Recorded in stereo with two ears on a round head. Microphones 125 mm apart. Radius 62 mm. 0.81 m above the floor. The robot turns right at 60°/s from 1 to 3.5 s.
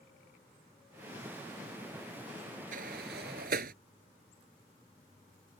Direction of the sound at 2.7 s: 65° right (ahead or behind).